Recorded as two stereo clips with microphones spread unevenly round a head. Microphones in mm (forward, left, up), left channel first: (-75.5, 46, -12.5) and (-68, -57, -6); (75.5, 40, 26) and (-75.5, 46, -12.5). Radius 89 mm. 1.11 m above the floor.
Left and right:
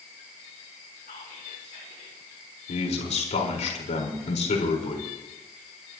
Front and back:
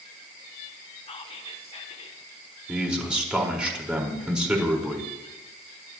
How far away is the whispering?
About 3.5 m.